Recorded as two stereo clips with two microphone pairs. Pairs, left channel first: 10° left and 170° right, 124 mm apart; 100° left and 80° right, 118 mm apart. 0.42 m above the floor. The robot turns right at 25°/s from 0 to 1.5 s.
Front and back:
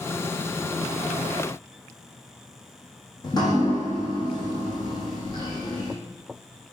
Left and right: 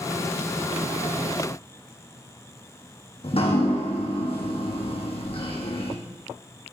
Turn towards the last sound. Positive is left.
turn(degrees=65)